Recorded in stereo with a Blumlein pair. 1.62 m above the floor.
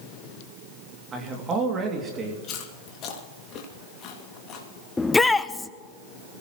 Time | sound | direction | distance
1.1 | a man speaking | 20° right | 2.5 m
2.4 | chewing | 30° left | 2.5 m
5.0 | a shout | 10° left | 0.8 m